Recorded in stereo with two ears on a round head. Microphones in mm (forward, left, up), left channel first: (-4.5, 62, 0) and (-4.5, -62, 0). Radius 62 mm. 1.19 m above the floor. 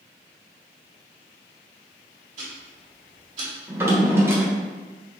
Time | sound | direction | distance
2.4 | ticking | 50° right (ahead or behind) | 2 m
3.7 | a drawer | 20° right (ahead or behind) | 1.0 m